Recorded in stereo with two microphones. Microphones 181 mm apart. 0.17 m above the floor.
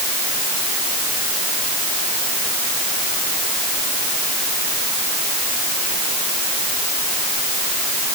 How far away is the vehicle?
No vehicle in this recording.